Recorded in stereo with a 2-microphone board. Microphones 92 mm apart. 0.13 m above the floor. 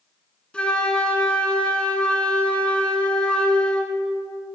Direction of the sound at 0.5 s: 10° left (ahead or behind).